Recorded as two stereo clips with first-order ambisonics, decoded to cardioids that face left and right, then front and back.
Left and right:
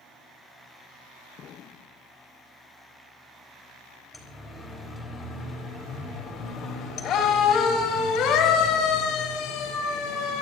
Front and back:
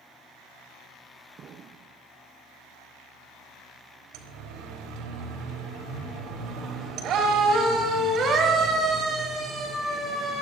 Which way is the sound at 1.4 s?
130° left.